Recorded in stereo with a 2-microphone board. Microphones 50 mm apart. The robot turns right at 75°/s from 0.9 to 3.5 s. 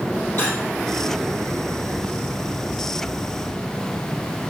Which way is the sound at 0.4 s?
40° left (ahead or behind).